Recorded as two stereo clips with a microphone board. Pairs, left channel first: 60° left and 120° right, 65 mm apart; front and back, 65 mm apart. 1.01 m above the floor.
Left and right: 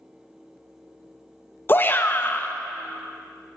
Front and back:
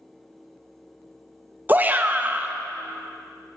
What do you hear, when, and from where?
1.7 s a shout: 115° left, 0.7 m